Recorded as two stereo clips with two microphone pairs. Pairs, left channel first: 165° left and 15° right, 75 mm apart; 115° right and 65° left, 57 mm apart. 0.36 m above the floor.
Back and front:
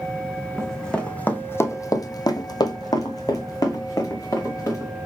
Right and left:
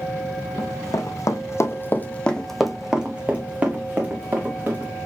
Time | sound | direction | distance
0.6 | running footsteps | 110° right | 1.0 m